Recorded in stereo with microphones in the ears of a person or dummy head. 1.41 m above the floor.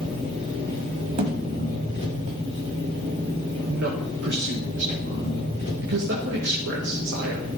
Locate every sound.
0.0 s an engine running: 35° right (ahead or behind), 5 m
1.2 s a thud: 35° right (ahead or behind), 1.7 m
3.6 s a man speaking: 60° right (ahead or behind), 1.9 m